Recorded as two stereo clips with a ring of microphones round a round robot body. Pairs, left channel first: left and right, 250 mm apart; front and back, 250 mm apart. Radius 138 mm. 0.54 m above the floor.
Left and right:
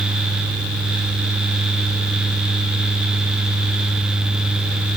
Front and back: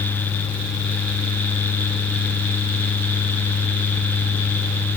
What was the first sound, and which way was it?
Only background noise.